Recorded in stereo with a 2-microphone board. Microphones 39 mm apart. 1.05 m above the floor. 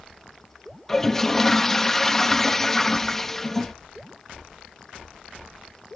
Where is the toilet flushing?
10° left (ahead or behind).